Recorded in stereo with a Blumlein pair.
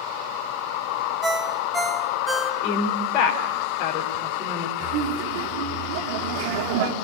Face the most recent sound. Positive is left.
turn(degrees=-50)